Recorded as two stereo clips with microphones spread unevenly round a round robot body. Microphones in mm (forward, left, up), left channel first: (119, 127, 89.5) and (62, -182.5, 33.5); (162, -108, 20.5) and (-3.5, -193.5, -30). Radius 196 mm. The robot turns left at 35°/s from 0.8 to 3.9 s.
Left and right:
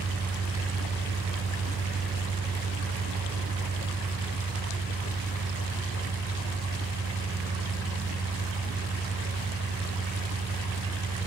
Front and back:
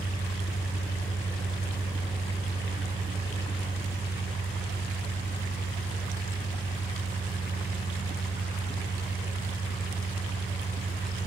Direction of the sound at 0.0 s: 60° right.